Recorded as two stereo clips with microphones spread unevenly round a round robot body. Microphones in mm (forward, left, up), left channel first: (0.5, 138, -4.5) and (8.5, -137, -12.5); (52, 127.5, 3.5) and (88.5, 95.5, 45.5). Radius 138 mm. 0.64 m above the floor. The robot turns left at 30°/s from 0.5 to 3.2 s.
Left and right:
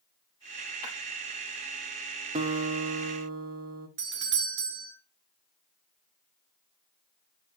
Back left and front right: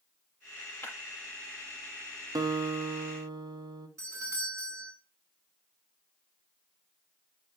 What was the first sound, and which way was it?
Breaking glass, 90° left.